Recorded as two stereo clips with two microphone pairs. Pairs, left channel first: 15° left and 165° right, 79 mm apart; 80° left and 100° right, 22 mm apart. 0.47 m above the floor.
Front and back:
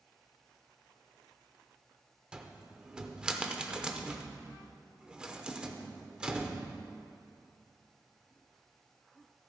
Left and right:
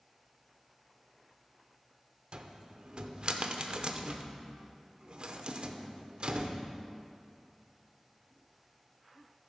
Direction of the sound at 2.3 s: 90° right.